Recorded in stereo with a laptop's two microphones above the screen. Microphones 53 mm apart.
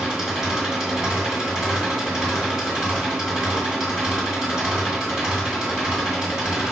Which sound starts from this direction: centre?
An engine running, at 0.0 s.